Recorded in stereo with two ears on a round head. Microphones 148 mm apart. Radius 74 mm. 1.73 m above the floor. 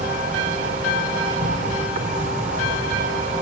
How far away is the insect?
About 3 m.